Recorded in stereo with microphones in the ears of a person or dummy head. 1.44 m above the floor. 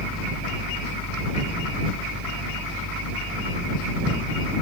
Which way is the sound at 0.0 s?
5° right (ahead or behind).